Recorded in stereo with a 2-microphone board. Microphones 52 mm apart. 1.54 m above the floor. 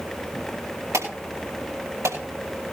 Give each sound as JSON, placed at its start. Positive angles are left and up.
{"t": 0.9, "sound": "an alarm", "side_deg": -85, "distance_m": 8.0}